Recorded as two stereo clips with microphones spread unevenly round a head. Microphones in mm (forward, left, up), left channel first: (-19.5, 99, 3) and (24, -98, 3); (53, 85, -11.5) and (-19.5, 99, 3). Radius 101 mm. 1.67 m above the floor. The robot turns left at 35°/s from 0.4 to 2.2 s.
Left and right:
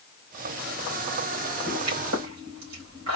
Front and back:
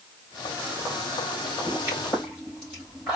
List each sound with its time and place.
1.7 s a pop: 75° right, 3 m; by 3.2 s 95° right, 3 m